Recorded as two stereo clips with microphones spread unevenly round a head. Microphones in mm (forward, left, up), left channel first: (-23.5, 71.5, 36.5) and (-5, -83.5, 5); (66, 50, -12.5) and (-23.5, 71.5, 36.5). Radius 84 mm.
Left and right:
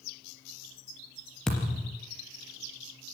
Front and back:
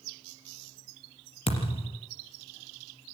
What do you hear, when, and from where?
1.5 s a thud: 15° left, 3.5 m